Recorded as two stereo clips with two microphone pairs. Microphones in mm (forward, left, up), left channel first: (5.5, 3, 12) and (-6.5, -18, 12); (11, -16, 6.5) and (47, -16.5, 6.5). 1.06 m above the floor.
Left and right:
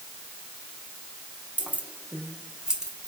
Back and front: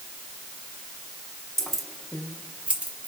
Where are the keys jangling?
105° right, 1.0 m; by 3.1 s 45° right, 1.4 m.